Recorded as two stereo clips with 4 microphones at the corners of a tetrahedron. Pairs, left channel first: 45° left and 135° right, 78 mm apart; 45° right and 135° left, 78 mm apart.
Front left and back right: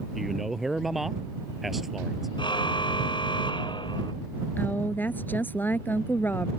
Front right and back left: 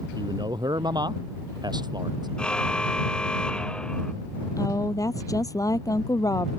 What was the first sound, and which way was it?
A man speaking, 140° left.